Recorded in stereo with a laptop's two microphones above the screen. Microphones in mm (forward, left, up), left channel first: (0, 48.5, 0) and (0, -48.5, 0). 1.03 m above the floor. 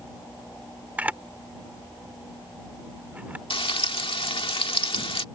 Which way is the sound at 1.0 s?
15° right (ahead or behind).